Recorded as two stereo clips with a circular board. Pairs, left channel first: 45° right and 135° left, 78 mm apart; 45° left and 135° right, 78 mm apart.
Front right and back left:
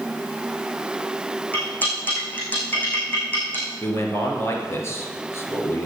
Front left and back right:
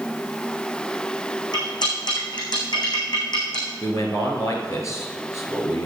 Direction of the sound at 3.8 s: 5° left.